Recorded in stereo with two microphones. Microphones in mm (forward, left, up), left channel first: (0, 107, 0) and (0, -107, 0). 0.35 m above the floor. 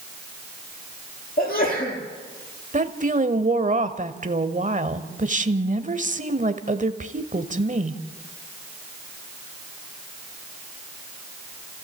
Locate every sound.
1.4 s a sneeze: 40° left (ahead or behind), 8 m
2.7 s a woman speaking: 35° right (ahead or behind), 1.2 m